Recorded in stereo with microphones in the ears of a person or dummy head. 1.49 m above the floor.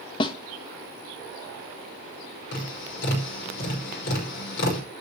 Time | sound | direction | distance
0.2 | a snare drum | 25° left (ahead or behind) | 1.0 m
2.5 | tapping | 65° left (ahead or behind) | 5 m